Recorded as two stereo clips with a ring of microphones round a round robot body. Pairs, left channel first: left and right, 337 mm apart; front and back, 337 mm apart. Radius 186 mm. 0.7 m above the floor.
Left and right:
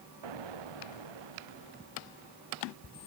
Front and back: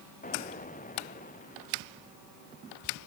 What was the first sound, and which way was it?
An explosion, 65° right.